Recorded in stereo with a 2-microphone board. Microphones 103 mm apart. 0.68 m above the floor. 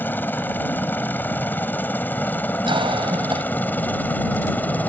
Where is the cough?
55° right (ahead or behind).